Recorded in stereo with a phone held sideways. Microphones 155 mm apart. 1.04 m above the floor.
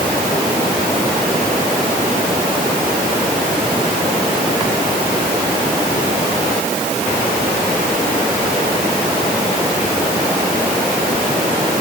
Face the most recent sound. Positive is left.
No sound to turn to.